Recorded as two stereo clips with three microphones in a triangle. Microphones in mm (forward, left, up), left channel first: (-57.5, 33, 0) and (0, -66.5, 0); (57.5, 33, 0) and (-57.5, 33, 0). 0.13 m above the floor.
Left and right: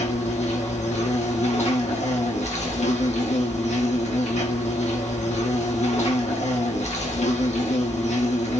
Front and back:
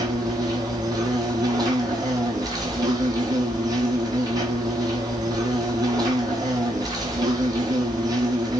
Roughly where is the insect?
Behind left.